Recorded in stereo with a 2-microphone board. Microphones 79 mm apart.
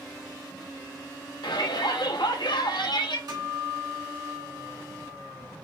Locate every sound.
1.4 s a shout: 70° left (ahead or behind), 0.8 m
3.3 s a guitar: 65° right (ahead or behind), 2 m